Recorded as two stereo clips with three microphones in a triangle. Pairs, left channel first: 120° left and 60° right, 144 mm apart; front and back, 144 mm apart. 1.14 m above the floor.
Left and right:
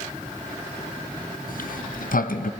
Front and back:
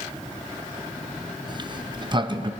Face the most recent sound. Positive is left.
turn(degrees=125)